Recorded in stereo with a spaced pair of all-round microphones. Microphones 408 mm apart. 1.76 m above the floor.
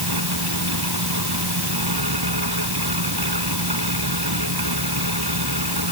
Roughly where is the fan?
Right.